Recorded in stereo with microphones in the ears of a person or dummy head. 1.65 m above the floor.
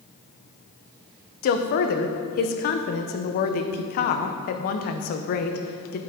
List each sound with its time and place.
1.4 s a woman speaking: 50° left (ahead or behind), 0.9 m